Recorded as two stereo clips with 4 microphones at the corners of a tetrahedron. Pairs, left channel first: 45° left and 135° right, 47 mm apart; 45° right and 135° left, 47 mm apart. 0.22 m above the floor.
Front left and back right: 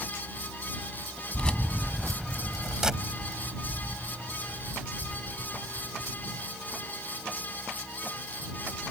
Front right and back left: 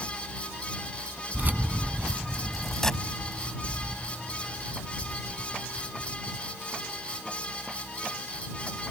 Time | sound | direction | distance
1.3 | keys jangling | 110° left | ?